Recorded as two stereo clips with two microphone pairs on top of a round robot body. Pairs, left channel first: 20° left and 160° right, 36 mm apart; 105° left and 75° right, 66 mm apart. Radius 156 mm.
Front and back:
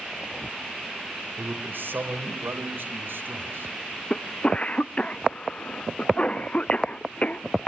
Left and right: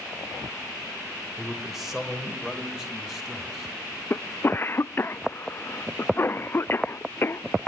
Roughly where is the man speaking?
Behind.